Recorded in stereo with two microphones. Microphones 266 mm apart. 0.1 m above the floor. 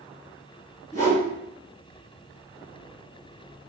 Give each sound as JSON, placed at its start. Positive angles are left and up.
{"t": 0.9, "sound": "a whoosh", "side_deg": 10, "distance_m": 1.7}